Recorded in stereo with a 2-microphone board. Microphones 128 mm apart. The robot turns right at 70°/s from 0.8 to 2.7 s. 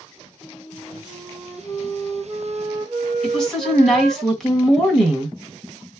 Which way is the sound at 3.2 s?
5° left (ahead or behind).